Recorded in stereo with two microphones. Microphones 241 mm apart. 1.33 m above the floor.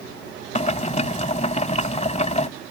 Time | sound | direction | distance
0.6 | boiling | 30° left (ahead or behind) | ?